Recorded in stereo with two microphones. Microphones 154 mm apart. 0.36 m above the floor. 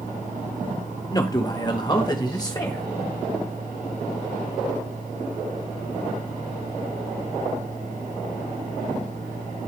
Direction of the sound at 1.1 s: 25° left (ahead or behind).